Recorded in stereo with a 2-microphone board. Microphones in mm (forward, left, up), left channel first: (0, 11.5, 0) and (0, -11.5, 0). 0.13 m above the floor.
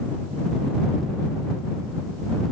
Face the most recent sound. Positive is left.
No sound to turn to.